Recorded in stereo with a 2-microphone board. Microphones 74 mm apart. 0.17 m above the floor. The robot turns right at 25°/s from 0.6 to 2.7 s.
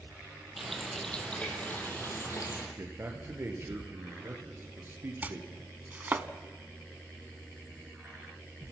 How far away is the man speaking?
About 3.5 m.